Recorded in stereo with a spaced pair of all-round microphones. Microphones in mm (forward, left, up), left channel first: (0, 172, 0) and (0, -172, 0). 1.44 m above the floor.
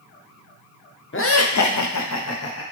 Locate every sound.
1.1 s laughter: 35° left (ahead or behind), 0.5 m; by 2.6 s 40° left (ahead or behind), 0.8 m